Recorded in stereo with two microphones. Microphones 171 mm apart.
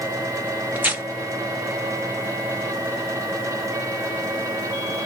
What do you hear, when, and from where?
0.8 s tearing paper: 10° right (ahead or behind), 0.8 m